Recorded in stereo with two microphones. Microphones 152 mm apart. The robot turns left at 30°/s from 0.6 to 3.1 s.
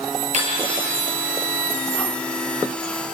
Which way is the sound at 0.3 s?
50° right (ahead or behind).